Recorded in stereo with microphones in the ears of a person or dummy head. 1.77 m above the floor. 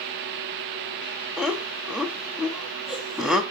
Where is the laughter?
5° right (ahead or behind), 0.8 m.